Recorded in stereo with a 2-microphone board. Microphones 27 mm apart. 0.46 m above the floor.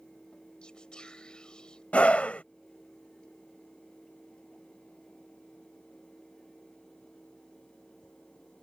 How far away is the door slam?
No door slam in this recording.